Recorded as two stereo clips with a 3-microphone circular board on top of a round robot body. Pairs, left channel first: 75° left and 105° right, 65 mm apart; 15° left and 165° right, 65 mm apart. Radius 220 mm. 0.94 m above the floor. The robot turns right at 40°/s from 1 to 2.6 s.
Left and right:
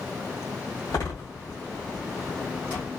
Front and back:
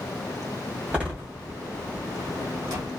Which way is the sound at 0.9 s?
120° left.